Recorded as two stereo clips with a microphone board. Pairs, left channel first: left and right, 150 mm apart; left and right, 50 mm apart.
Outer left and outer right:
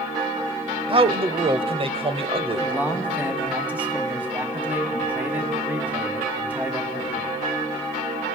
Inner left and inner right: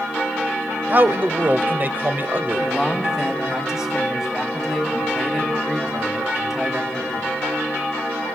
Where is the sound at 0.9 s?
40° right (ahead or behind), 1.2 m.